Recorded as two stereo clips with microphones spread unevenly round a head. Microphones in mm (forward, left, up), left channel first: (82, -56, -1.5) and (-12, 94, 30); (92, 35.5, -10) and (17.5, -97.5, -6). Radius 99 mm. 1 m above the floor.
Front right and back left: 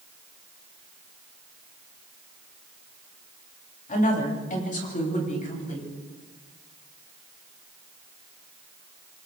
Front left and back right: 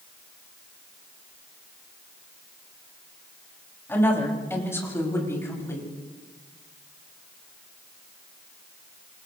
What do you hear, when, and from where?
3.9 s a woman speaking: 15° right, 6.5 m; by 5.9 s 10° right, 8.5 m